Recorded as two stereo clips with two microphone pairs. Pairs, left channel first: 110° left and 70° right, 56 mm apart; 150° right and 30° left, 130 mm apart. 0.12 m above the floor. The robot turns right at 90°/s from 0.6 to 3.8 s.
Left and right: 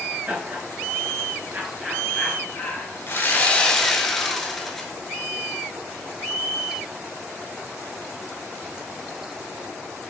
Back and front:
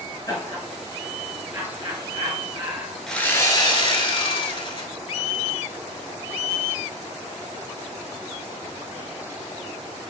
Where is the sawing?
125° left, 0.9 m; by 4.9 s 170° right, 0.9 m.